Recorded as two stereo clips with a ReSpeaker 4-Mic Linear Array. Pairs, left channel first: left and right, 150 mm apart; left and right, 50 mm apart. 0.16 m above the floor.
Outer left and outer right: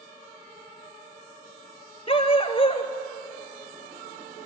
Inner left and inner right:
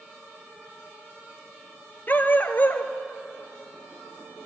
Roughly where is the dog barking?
Left.